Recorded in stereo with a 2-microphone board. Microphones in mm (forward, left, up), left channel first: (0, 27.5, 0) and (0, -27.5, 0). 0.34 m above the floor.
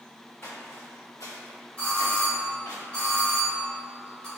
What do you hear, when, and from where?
0.4 s footsteps: 45° left (ahead or behind), 1.1 m
1.8 s a doorbell: 20° left (ahead or behind), 1.9 m